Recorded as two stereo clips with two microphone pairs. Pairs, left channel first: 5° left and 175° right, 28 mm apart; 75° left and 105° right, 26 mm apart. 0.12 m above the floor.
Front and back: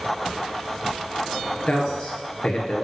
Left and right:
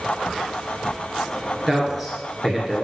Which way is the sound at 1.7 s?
20° right.